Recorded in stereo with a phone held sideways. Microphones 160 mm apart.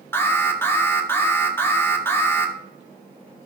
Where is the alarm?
15° left (ahead or behind), 1.3 m.